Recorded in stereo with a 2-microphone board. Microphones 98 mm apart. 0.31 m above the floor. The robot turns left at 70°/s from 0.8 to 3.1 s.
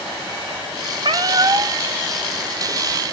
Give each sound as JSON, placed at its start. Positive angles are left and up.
{"t": 1.0, "sound": "a cat meowing", "azimuth_deg": -85, "distance_m": 0.8}